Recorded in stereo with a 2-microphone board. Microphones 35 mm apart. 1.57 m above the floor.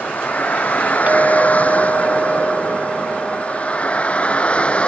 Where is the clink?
50° right (ahead or behind).